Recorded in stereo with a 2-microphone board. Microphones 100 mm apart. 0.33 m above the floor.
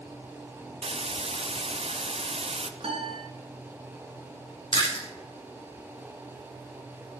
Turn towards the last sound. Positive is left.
turn(degrees=50)  # may be behind; listen again after turning